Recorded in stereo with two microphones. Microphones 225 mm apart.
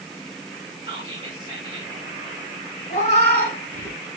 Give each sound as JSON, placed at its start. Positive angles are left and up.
{"t": 0.8, "sound": "whispering", "side_deg": -25, "distance_m": 1.3}
{"t": 2.9, "sound": "a cat meowing", "side_deg": 35, "distance_m": 1.4}